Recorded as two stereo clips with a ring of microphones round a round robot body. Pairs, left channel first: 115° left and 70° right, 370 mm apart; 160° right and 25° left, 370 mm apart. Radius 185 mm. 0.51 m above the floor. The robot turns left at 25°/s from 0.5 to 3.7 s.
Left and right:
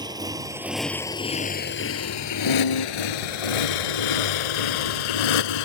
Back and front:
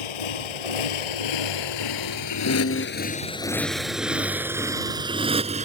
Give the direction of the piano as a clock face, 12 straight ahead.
7 o'clock.